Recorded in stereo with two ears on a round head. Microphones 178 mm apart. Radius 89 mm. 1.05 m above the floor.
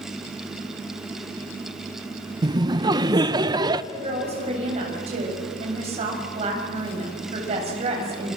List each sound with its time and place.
2.4 s laughter: 20° right (ahead or behind), 0.8 m
3.9 s a woman speaking: 30° right (ahead or behind), 7 m